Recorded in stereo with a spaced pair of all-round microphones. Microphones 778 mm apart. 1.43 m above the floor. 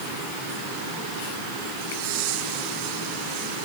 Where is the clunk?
I don't hear a clunk.